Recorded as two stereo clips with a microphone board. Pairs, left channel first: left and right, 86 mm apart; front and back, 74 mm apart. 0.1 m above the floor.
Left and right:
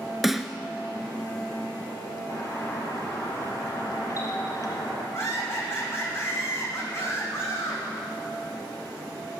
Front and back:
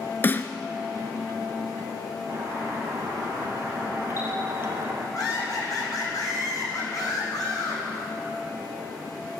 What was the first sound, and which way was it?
A snare drum, straight ahead.